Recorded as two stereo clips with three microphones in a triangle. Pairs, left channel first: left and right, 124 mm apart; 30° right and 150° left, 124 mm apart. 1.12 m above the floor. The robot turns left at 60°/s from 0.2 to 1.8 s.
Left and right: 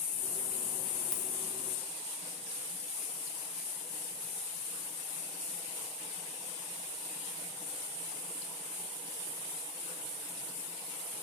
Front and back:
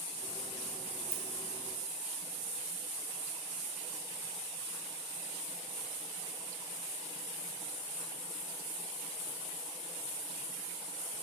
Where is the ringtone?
5° right, 0.7 m.